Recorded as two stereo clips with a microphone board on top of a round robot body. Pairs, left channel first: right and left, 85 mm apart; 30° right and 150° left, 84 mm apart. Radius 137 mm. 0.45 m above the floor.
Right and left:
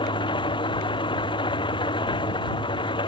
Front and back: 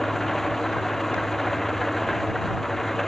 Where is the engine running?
115° right.